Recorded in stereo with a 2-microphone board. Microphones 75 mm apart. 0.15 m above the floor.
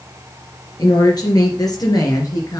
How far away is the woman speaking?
About 3 m.